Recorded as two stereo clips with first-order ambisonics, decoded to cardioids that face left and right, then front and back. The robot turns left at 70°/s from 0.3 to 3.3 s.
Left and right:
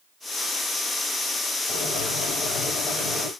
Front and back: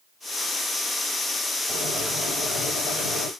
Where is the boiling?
115° left, 2.5 m; by 3.3 s 5° left, 2.5 m.